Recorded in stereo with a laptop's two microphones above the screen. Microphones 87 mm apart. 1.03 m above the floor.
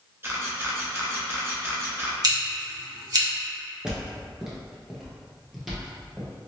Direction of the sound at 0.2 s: 30° right (ahead or behind).